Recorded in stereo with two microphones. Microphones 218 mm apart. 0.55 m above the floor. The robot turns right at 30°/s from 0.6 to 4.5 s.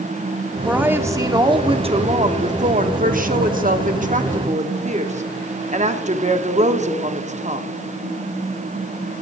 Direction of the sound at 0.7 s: 170° right.